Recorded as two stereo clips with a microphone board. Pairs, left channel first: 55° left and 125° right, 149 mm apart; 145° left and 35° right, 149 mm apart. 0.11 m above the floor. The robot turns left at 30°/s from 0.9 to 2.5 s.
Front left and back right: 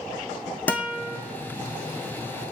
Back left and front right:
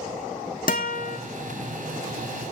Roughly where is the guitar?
Behind left.